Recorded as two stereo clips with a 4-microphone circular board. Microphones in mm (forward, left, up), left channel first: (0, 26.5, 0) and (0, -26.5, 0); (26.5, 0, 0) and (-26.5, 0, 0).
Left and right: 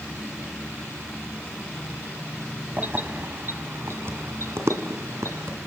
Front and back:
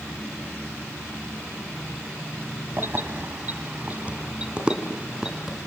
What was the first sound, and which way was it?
Keys jangling, 140° right.